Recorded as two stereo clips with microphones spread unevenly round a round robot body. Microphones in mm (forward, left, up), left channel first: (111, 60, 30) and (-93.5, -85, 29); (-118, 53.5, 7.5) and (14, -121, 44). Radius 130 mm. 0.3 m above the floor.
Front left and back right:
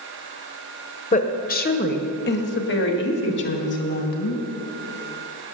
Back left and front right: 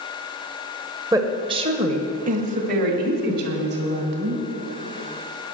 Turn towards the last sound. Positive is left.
turn(degrees=-5)